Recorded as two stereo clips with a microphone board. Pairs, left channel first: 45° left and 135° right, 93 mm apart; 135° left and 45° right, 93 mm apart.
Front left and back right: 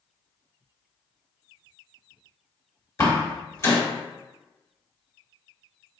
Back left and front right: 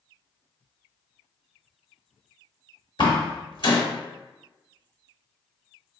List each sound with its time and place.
3.0 s a door slam: 105° left, 1.0 m